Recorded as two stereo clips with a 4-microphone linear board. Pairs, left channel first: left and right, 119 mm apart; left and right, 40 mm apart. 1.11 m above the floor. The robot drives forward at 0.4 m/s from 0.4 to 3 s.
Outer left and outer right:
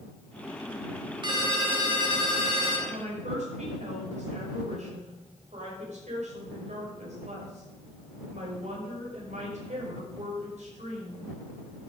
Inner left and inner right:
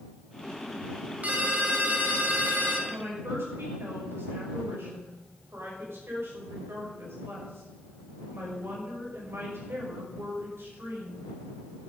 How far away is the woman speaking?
About 5.5 m.